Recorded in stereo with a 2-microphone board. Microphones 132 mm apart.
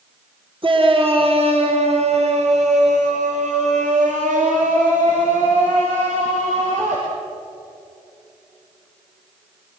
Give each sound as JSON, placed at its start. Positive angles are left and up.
{"t": 0.6, "sound": "a shout", "side_deg": -40, "distance_m": 3.0}